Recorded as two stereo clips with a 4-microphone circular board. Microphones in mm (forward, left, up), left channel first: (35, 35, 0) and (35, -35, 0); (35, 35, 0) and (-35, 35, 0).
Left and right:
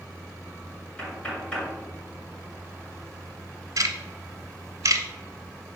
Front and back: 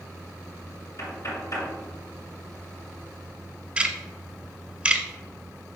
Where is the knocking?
20° left, 2 m.